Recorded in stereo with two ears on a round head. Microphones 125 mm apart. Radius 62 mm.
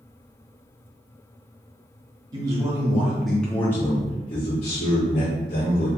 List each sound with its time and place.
2.3 s a man speaking: 30° right (ahead or behind), 1.1 m; by 5.9 s 65° left (ahead or behind), 1.6 m